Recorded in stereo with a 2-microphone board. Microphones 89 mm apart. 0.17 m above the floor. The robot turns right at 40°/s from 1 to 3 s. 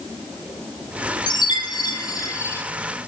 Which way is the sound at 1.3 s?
95° left.